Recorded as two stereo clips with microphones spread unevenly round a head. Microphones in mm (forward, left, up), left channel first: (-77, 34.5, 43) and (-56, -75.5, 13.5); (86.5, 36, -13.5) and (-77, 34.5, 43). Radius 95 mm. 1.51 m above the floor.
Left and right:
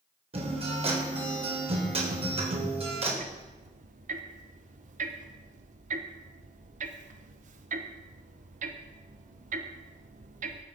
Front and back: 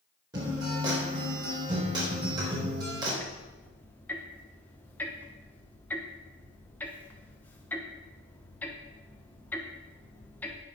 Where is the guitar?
115° right, 4 m.